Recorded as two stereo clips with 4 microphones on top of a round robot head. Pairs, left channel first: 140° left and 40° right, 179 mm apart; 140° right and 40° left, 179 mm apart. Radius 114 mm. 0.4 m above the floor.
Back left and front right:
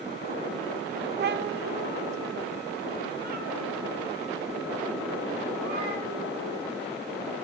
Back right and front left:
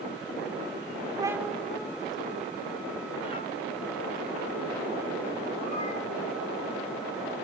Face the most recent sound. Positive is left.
turn(degrees=-85)